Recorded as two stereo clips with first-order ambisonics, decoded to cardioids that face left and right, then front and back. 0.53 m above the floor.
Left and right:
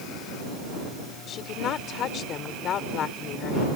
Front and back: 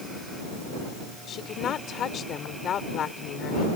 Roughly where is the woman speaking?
Ahead left.